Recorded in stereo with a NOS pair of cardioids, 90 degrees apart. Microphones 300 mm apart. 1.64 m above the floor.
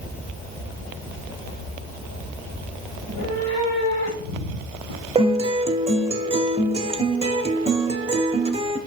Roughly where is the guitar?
Ahead.